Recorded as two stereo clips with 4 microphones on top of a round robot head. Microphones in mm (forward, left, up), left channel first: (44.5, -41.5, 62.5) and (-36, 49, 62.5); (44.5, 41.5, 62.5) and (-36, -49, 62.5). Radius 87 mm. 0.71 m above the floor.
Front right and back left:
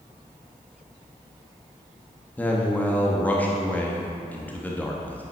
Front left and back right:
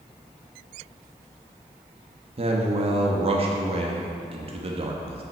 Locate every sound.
2.4 s a man speaking: 120° right, 1.1 m